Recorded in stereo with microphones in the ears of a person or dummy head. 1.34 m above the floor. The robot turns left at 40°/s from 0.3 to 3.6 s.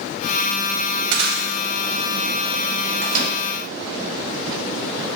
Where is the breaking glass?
70° right (ahead or behind), 3.5 m; by 1.5 s 80° right, 3.5 m.